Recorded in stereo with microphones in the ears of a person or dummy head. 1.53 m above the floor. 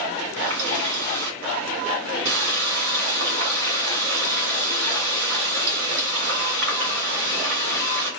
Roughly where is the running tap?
Right.